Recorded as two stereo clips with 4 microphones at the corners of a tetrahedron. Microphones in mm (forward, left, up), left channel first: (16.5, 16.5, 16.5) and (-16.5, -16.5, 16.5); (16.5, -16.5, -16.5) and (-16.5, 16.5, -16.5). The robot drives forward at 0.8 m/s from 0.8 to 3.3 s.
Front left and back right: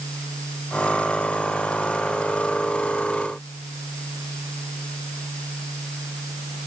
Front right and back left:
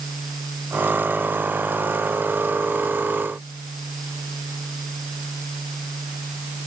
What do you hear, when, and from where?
Only background noise.